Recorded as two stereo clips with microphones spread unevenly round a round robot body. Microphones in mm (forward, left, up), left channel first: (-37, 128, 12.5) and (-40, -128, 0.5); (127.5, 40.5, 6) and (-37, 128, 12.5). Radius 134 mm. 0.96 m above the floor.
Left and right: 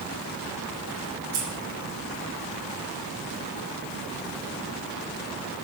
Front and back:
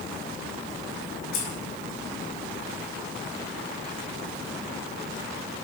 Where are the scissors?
35° right, 5 m.